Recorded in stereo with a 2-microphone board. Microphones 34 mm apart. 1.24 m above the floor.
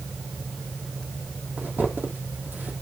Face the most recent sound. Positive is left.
turn(degrees=-60)  # may be behind; listen again after turning